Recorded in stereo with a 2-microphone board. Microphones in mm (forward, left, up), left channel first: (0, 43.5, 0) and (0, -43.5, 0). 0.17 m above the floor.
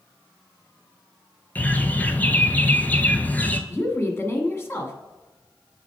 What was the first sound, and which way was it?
A bird, 20° left (ahead or behind).